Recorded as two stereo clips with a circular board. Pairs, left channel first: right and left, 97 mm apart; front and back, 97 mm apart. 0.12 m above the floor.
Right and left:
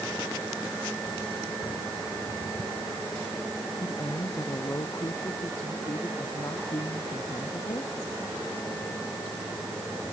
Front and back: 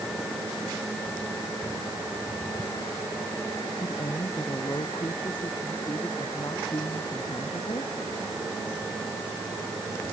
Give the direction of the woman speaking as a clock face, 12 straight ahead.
1 o'clock.